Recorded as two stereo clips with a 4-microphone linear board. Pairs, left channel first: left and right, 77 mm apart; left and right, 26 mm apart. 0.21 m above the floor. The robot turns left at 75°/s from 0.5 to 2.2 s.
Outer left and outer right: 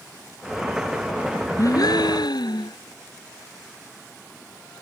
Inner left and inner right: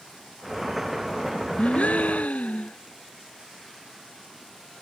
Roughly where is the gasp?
Behind left.